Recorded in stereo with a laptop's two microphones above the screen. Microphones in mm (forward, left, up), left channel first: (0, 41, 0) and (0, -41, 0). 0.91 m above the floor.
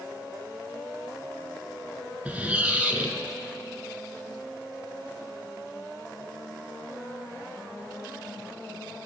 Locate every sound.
2.2 s a squeak: 20° right (ahead or behind), 0.9 m